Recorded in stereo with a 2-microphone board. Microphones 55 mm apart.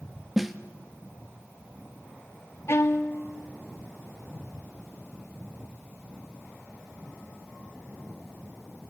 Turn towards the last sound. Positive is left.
turn(degrees=55)  # may be behind; listen again after turning